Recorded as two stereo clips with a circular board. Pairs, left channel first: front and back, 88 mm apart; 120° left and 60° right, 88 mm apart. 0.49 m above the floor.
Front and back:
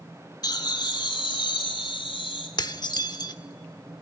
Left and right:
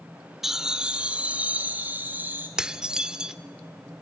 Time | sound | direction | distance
0.4 | laughter | 25° left | 1.0 m
2.6 | dishes clattering | 20° left | 0.7 m